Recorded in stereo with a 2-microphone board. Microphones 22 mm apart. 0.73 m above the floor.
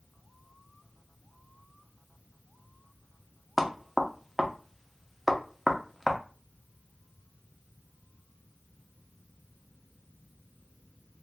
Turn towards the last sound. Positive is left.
turn(degrees=0)  # may be behind; listen again after turning